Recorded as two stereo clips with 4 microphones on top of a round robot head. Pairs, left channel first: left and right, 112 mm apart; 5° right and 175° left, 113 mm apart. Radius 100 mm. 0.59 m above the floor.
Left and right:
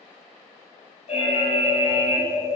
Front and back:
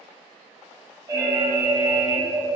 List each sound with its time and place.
1.1 s an alarm: 115° left, 2.5 m